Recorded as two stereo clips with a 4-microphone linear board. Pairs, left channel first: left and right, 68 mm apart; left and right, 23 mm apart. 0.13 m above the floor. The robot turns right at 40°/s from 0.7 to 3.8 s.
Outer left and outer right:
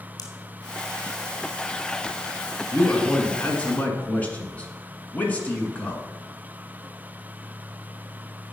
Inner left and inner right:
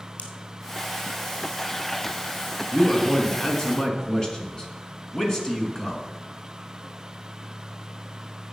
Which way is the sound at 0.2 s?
65° left (ahead or behind).